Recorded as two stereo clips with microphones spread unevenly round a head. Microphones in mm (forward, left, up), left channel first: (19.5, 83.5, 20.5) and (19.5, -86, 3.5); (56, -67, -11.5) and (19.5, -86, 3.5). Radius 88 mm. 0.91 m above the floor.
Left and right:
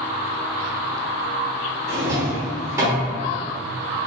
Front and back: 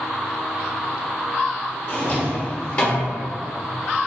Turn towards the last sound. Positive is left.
turn(degrees=-15)